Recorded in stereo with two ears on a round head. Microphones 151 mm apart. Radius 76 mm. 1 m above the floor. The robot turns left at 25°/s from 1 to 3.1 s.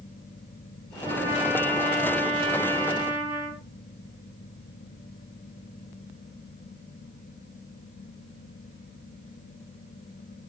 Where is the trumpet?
150° right, 8.5 m; by 3.6 s 155° left, 8.5 m.